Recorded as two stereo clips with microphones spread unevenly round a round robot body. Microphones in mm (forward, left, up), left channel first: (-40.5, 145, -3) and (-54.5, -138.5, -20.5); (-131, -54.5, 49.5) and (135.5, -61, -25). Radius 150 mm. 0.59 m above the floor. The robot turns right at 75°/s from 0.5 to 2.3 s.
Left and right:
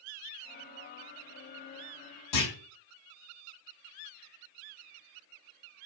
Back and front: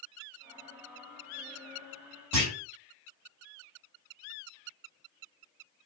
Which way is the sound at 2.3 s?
75° left.